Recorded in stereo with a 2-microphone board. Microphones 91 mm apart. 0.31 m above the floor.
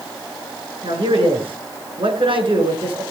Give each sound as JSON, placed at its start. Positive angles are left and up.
{"t": 0.8, "sound": "a man speaking", "side_deg": -70, "distance_m": 5.0}